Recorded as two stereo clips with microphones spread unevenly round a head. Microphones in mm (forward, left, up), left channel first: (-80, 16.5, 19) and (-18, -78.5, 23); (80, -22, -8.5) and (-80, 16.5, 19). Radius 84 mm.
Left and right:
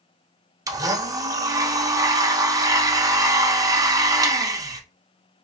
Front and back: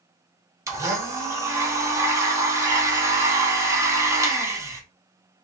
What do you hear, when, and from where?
0.7 s a blender: 120° right, 1.0 m